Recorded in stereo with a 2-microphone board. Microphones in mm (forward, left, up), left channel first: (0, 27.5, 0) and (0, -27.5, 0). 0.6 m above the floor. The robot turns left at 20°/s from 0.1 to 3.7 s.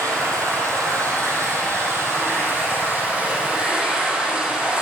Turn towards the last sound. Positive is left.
turn(degrees=-165)